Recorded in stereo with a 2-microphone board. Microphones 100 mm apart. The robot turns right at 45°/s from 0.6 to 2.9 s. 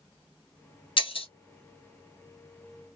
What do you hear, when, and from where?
1.0 s breaking glass: 55° left (ahead or behind), 0.9 m; by 1.3 s 70° left (ahead or behind), 0.9 m